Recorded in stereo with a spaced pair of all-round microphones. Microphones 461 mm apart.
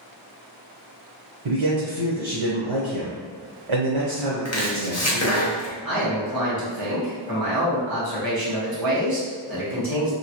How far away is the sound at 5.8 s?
About 1.3 m.